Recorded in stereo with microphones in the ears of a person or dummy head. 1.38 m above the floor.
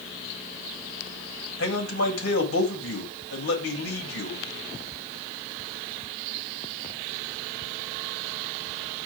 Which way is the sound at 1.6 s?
85° left.